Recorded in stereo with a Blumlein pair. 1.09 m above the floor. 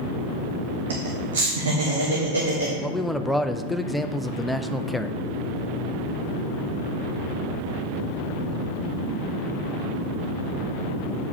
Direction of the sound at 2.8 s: 5° left.